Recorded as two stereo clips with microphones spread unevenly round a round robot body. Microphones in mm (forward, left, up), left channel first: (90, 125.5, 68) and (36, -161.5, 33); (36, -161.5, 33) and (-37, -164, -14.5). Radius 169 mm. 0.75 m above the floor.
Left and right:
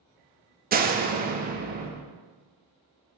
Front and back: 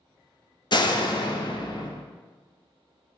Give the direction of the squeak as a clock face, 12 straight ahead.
I don't hear a squeak.